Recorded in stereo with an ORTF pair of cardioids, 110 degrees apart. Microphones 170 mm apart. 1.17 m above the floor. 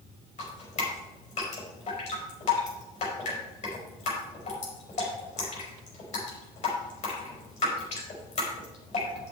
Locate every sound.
0.4 s dripping: 40° left, 4.5 m